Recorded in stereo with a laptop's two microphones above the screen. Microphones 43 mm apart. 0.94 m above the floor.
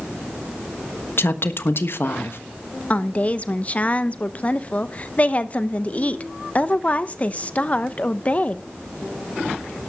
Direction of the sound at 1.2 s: 60° left (ahead or behind).